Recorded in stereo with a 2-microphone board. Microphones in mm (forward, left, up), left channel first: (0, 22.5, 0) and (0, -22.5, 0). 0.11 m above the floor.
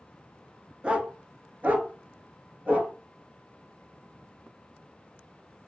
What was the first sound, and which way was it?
A dog barking, 25° right (ahead or behind).